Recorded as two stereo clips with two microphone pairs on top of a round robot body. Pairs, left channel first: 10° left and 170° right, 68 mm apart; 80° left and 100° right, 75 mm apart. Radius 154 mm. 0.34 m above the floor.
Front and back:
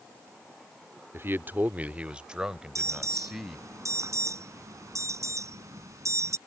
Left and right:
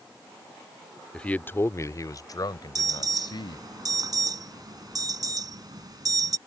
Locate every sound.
1.1 s a man speaking: 160° left; by 3.6 s 105° left
2.8 s an alarm: 130° right